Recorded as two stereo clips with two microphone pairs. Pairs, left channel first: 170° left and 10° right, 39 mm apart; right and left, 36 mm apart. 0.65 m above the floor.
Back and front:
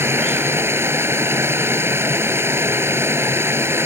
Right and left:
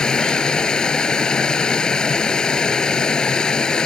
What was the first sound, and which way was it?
Running water, 20° right.